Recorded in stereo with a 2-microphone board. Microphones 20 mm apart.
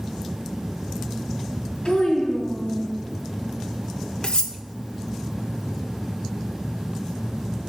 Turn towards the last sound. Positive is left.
turn(degrees=55)  # may be behind; listen again after turning